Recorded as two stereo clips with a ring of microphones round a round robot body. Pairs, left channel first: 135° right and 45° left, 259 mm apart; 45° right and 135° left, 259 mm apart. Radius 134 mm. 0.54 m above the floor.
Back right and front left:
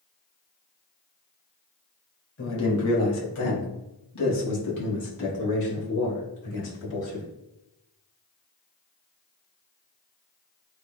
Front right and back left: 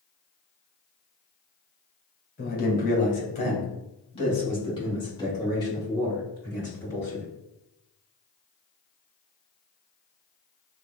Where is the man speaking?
95° right, 2 m; by 7.2 s 125° right, 7 m.